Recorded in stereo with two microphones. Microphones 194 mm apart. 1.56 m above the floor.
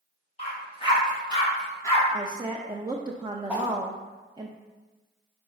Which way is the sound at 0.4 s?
30° left (ahead or behind).